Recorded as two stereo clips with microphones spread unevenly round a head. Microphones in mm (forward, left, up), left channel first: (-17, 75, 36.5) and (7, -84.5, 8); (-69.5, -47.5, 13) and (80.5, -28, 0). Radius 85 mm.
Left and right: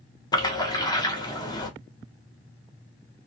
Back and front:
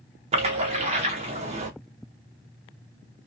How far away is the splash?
About 0.7 m.